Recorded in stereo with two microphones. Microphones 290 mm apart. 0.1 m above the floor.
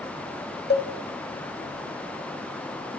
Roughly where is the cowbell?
Left.